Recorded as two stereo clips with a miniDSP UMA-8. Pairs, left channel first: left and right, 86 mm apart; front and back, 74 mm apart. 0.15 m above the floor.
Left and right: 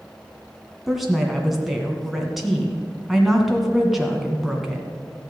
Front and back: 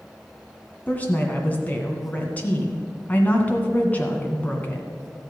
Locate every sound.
0.9 s a woman speaking: 5° right, 1.6 m